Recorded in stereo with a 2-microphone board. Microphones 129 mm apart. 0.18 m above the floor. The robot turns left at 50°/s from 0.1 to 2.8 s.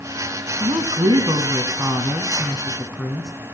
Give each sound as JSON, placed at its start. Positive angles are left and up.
{"t": 0.6, "sound": "a woman speaking", "azimuth_deg": -75, "distance_m": 1.3}